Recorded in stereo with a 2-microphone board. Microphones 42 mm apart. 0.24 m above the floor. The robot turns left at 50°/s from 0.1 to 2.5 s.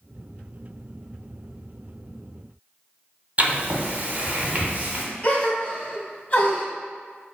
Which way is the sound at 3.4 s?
40° right (ahead or behind).